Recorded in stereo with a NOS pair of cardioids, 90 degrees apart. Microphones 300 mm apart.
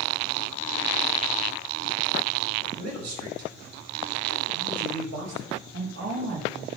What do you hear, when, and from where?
2.8 s a man speaking: 60° right, 4.5 m
5.7 s a woman speaking: 45° right, 1.7 m